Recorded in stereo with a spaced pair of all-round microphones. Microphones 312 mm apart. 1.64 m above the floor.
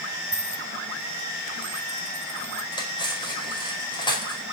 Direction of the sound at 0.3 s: 40° right (ahead or behind).